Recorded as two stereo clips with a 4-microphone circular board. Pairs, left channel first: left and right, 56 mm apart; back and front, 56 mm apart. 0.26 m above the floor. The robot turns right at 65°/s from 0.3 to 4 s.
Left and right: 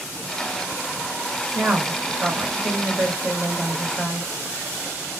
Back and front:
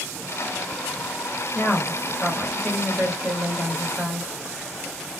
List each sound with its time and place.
1.6 s a woman speaking: 145° right, 1.1 m; by 4.3 s 15° left, 1.1 m